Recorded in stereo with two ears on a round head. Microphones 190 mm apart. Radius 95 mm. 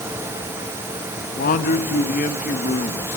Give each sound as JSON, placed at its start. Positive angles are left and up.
{"t": 1.2, "sound": "a man speaking", "side_deg": 40, "distance_m": 1.5}